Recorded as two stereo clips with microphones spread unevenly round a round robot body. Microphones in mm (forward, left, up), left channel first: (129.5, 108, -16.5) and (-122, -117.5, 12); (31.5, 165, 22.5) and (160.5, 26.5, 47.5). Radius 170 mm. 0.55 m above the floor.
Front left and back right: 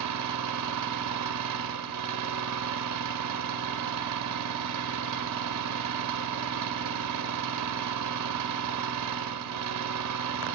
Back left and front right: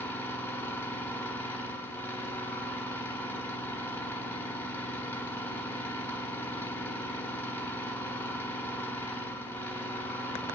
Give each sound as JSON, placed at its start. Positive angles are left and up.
{"t": 0.0, "sound": "an engine running", "azimuth_deg": -160, "distance_m": 0.9}